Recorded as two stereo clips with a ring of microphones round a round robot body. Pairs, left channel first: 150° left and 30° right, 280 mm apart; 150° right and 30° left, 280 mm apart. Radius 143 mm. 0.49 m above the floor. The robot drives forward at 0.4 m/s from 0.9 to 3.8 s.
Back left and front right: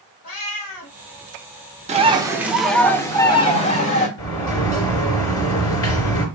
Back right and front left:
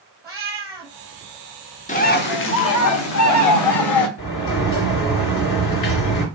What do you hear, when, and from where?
0.2 s a cat meowing: 110° left, 1.6 m
1.9 s a bird: 90° right, 0.7 m; by 4.1 s 145° right, 1.1 m
4.2 s a sliding door: 175° right, 2.5 m